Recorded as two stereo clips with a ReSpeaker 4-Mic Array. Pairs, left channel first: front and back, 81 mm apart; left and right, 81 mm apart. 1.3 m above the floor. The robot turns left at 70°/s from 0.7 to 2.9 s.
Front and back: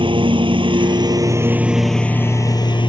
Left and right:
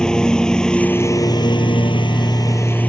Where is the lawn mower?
170° left; by 2.9 s 15° left.